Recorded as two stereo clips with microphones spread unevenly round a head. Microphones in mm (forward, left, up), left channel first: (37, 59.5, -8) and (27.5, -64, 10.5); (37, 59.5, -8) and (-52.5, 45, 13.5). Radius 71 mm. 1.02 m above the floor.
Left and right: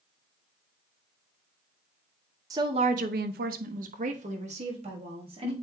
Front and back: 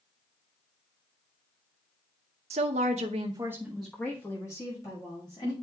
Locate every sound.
2.5 s a woman speaking: 165° right, 0.7 m; by 5.5 s 50° right, 2.0 m